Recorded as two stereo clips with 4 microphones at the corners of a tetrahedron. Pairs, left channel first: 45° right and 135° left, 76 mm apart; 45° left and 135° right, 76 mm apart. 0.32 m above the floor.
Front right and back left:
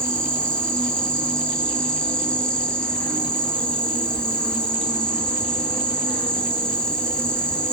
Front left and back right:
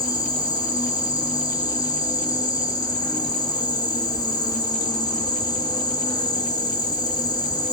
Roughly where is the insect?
Ahead left.